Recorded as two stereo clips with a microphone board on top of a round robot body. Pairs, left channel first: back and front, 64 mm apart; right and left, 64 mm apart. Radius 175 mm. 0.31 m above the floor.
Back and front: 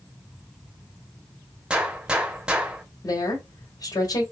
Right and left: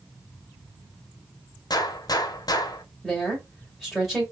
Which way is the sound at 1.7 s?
75° right.